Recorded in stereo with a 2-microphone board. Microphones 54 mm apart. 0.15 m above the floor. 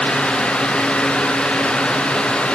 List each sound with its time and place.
Only background noise.